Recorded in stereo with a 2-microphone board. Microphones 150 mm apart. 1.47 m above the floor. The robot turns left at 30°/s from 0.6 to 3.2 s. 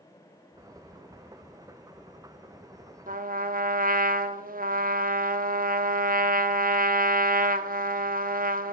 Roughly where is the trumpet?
Right.